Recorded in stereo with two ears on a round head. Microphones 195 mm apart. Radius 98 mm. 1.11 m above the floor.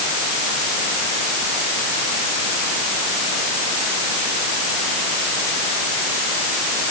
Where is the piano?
No piano in this recording.